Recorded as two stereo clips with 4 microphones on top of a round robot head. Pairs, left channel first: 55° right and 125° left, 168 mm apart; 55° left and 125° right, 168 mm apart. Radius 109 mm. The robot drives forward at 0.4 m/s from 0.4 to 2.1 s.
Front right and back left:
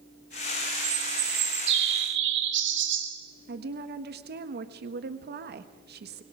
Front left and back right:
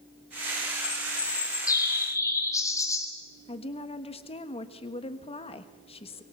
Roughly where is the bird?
Behind left.